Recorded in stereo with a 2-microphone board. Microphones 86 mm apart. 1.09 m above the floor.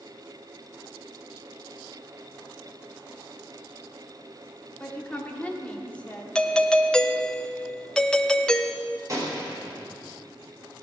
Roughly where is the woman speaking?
Centre.